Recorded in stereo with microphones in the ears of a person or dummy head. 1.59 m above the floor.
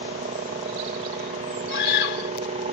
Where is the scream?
55° left (ahead or behind).